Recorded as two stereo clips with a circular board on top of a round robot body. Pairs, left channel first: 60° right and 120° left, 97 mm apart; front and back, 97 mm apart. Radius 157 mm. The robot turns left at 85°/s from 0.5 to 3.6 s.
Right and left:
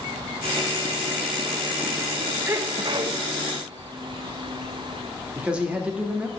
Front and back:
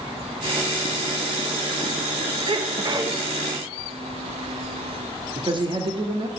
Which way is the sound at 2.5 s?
175° right.